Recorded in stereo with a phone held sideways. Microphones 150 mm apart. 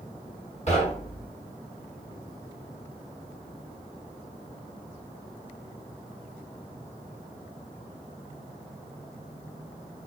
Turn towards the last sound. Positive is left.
turn(degrees=45)  # may be behind; listen again after turning